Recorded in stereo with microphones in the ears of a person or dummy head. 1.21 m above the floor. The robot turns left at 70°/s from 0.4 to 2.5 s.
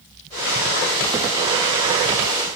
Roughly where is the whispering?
I don't hear whispering.